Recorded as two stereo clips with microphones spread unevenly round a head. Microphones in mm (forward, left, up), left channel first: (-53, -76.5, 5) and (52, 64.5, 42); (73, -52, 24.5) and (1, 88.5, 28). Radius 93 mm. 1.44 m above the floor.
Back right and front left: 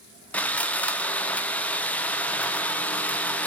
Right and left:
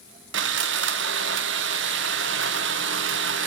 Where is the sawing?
145° left, 0.6 m.